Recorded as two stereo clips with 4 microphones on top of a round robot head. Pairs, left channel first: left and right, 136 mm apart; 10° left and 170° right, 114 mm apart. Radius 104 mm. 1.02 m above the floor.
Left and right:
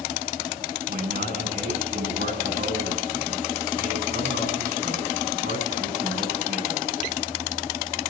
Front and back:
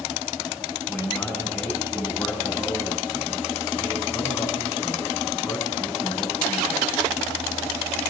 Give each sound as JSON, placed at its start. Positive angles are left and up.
{"t": 0.9, "sound": "a man speaking", "azimuth_deg": -70, "distance_m": 8.0}